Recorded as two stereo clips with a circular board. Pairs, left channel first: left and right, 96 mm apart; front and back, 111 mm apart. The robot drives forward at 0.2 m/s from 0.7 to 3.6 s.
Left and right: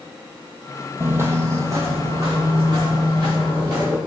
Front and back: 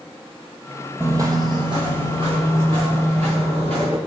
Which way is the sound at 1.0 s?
130° right.